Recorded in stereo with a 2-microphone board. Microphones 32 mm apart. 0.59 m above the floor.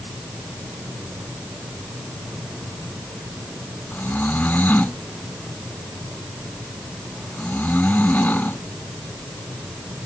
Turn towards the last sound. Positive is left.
turn(degrees=65)  # may be behind; listen again after turning